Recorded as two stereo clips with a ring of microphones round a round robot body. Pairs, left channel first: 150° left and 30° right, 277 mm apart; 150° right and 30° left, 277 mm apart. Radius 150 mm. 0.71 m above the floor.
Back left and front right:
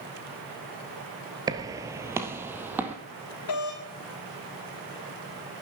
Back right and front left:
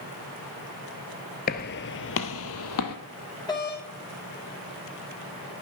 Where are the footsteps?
100° right, 0.8 m; by 3.0 s 115° right, 1.6 m.